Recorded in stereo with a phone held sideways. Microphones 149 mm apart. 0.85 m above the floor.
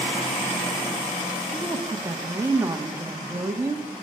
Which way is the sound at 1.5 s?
20° right (ahead or behind).